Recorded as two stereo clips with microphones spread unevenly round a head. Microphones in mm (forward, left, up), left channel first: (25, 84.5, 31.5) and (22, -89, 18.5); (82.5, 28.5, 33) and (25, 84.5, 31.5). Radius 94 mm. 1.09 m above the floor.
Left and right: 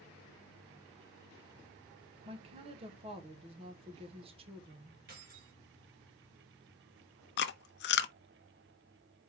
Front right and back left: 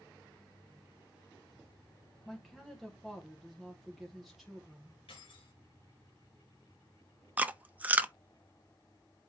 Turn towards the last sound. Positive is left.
turn(degrees=65)